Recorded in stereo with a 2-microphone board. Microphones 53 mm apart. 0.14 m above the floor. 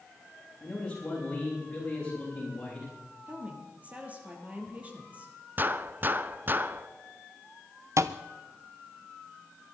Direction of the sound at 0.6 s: 20° left (ahead or behind).